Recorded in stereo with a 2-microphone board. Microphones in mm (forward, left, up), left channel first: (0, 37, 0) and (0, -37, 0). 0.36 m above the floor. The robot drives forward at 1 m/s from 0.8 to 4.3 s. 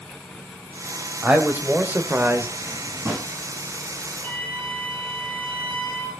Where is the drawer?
25° right (ahead or behind), 6.5 m; by 3.3 s 30° right (ahead or behind), 6 m.